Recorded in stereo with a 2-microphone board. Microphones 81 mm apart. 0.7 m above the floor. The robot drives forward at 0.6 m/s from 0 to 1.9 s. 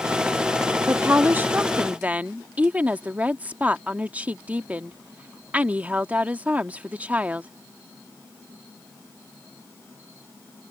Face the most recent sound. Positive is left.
turn(degrees=-20)  # may be behind; listen again after turning